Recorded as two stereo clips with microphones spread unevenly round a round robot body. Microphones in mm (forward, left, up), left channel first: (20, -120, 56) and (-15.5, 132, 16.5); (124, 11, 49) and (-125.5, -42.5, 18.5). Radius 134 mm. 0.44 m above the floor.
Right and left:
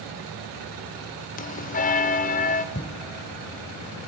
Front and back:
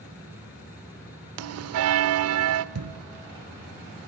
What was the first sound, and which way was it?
A bell, 145° right.